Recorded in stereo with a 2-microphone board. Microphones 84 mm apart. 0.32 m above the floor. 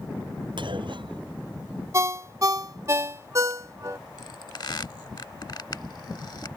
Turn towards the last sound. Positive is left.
turn(degrees=55)  # may be behind; listen again after turning